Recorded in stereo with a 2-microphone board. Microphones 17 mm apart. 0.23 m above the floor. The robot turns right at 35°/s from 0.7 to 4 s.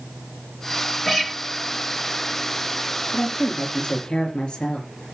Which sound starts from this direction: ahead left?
A woman speaking, at 3.1 s.